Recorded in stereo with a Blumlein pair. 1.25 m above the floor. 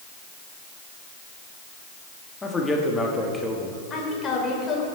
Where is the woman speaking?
20° left, 4 m.